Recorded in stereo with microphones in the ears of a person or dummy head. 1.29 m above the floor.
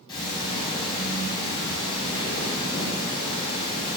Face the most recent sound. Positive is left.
turn(degrees=25)  # may be behind; listen again after turning